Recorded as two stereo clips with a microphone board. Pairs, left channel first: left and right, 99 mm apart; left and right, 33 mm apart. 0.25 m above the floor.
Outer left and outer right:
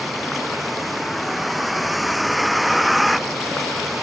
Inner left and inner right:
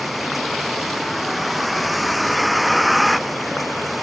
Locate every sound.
0.0 s a vehicle: centre (ahead or behind)